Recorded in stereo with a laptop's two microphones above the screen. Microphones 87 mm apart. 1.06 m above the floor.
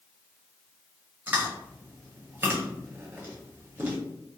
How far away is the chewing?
About 0.9 m.